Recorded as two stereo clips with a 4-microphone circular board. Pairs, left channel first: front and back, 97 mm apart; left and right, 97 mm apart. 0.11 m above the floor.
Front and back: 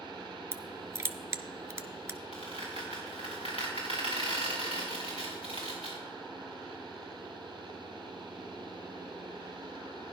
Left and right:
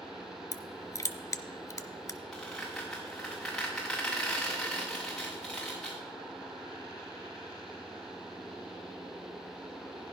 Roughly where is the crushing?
Behind left.